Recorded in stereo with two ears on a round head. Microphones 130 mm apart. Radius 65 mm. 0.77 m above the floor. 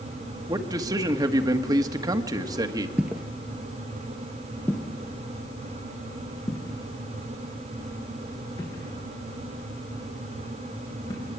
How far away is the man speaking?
About 1.3 m.